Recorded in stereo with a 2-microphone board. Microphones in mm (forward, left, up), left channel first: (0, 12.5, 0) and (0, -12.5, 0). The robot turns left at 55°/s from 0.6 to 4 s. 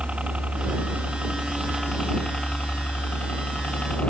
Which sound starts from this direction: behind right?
A helicopter, at 0.0 s.